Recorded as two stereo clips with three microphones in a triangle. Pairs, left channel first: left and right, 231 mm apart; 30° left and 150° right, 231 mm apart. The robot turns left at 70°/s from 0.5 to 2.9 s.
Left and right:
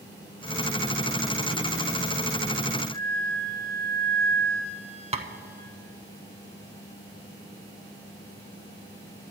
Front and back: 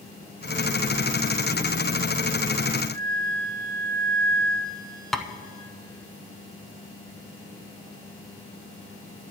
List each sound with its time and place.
2.9 s a flute: 175° left, 4 m
5.1 s tapping: 55° right, 0.5 m